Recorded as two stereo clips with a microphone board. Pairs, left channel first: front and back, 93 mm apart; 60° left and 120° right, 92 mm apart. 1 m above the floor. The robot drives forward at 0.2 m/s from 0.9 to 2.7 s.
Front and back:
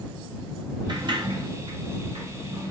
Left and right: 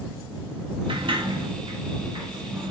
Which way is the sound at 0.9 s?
145° right.